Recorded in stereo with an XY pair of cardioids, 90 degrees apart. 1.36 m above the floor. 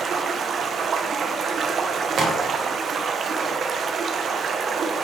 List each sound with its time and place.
0.0 s running water: 60° right, 0.7 m
2.2 s a crack: 65° right, 1.6 m